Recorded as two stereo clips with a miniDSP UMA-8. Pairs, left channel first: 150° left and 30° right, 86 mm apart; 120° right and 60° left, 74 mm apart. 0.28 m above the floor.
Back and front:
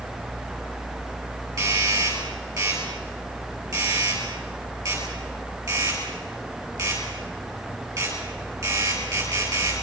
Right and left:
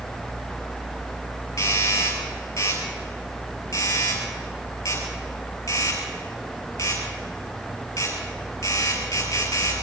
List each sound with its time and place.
1.6 s a doorbell: 75° right, 8.5 m